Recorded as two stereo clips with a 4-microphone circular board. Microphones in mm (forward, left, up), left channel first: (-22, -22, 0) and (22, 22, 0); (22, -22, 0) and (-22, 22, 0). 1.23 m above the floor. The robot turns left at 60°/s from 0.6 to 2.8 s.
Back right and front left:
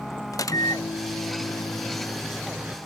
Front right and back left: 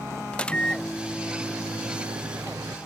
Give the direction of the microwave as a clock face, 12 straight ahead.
4 o'clock.